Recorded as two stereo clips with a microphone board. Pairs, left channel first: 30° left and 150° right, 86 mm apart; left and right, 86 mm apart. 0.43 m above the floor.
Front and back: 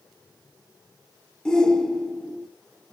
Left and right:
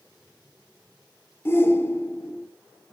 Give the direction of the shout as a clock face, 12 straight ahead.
9 o'clock.